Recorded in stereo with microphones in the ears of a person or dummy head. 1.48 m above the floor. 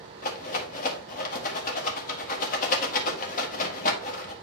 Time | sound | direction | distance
0.2 | a rattle | 45° left (ahead or behind) | 1.8 m